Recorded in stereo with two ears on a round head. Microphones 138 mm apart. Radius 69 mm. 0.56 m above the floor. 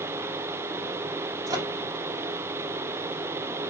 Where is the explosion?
I don't hear an explosion.